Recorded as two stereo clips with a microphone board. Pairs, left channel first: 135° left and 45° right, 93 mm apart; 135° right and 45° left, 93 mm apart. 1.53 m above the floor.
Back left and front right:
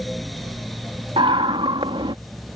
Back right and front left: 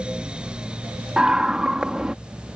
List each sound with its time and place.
1.2 s a scream: 40° right